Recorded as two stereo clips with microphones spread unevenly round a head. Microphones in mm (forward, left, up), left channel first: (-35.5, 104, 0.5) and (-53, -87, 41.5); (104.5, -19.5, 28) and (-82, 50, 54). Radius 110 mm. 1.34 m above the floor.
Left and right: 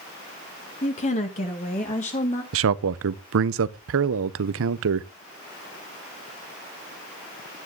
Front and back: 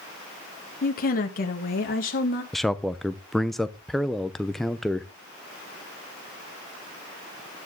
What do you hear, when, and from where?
0.8 s a woman speaking: 25° left, 1.2 m
2.5 s a man speaking: 110° right, 0.7 m